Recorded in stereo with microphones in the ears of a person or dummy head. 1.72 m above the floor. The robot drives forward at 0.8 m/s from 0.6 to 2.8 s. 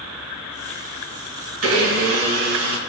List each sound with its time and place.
1.6 s a blender: 90° right, 2.5 m; by 2.8 s 70° right (ahead or behind), 2.5 m